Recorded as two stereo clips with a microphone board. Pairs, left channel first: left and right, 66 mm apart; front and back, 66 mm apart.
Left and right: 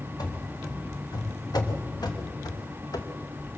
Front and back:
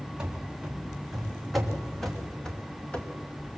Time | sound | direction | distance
0.2 | running footsteps | 100° left | 3.5 m